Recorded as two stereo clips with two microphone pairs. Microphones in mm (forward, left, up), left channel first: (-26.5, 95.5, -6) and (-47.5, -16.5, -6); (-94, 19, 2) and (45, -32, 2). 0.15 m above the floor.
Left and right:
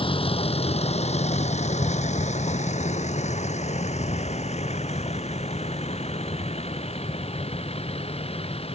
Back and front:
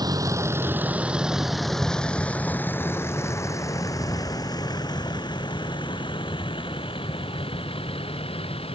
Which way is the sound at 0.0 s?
40° left.